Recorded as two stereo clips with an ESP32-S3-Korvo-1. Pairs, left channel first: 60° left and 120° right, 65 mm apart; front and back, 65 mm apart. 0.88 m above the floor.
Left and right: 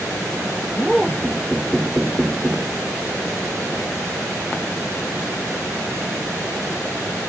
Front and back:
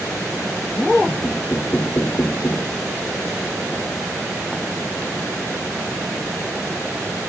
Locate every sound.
1.2 s knocking: 45° right